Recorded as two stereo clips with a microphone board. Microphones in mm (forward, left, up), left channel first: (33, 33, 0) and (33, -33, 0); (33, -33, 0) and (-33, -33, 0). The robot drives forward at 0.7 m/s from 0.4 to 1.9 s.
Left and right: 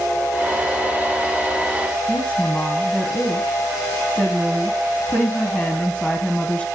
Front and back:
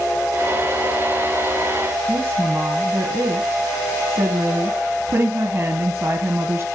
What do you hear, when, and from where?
2.1 s a woman speaking: 150° left, 1.2 m